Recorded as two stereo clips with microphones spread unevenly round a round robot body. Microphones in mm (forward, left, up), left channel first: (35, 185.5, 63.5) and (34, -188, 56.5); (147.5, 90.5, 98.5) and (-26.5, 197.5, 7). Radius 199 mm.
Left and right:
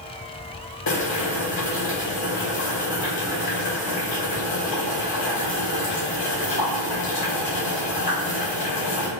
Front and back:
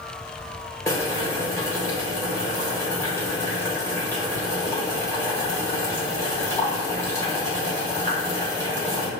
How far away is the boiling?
About 1.9 m.